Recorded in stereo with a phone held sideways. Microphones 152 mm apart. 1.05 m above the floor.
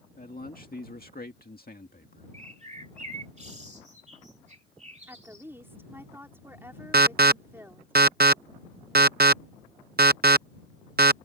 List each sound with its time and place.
0.2 s a man speaking: 65° left (ahead or behind)
2.3 s a bird: 50° right (ahead or behind)
5.1 s a woman speaking: 15° right (ahead or behind)
6.9 s an alarm: 85° right